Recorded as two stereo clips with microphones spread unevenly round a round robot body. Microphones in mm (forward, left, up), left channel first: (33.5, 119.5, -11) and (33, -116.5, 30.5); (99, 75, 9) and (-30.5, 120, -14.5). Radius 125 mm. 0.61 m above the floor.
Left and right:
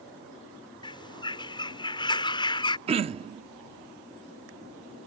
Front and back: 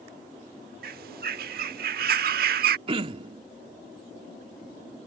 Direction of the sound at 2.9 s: 160° right.